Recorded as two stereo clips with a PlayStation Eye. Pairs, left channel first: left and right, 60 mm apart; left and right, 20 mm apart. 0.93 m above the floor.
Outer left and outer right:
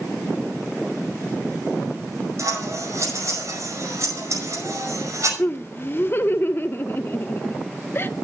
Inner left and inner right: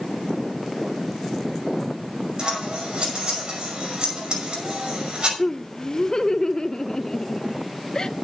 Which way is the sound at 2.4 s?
55° right (ahead or behind).